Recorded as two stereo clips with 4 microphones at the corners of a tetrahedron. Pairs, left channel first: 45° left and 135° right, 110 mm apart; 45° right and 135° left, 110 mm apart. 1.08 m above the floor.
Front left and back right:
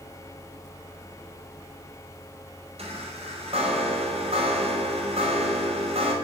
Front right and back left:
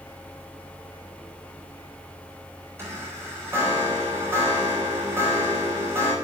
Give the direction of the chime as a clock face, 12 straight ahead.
5 o'clock.